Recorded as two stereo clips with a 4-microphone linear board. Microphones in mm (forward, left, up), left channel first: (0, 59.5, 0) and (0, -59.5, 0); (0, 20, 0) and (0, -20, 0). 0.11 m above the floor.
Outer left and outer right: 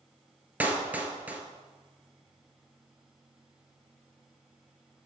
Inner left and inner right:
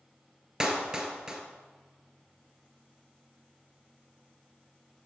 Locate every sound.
0.6 s a clap: 15° right (ahead or behind), 1.3 m